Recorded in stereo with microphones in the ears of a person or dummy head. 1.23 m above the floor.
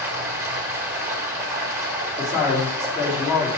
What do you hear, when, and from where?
0.0 s running water: 15° right (ahead or behind), 1.2 m
2.2 s a man speaking: 25° left (ahead or behind), 3.5 m